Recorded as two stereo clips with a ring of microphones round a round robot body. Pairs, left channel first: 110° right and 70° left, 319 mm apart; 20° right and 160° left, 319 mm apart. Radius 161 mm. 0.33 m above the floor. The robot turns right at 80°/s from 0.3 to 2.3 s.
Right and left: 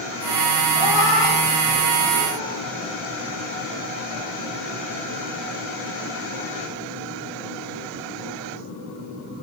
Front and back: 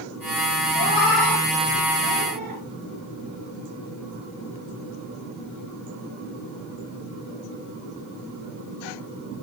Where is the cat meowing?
55° left, 3 m; by 2.6 s straight behind, 3 m.